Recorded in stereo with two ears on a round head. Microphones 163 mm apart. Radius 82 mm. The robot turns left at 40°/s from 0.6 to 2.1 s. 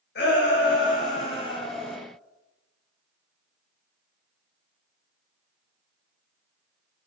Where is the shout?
65° left, 4.5 m; by 2.0 s 10° left, 4.5 m.